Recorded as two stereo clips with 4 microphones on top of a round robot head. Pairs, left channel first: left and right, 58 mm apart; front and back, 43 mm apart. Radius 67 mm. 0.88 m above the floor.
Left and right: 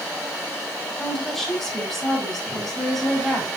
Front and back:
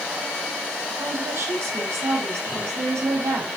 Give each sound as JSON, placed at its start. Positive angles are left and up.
{"t": 1.0, "sound": "a woman speaking", "azimuth_deg": 175, "distance_m": 4.5}